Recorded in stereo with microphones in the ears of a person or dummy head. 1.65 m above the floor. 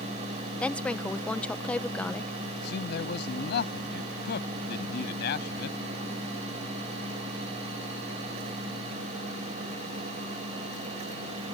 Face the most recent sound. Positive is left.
turn(degrees=65)  # may be behind; listen again after turning